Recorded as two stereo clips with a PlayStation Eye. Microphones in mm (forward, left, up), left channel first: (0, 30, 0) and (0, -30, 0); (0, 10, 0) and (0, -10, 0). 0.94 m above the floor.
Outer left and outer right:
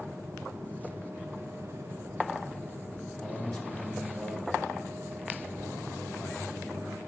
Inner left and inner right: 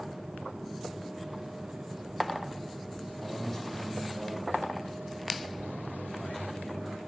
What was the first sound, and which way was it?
A man speaking, 5° left (ahead or behind).